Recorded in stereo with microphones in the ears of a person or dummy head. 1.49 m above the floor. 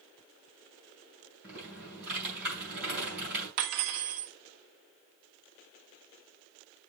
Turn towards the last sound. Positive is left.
turn(degrees=-55)  # may be behind; listen again after turning